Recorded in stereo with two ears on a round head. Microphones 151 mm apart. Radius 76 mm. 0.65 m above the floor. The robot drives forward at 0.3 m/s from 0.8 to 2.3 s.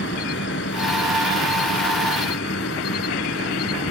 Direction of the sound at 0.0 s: 75° left (ahead or behind).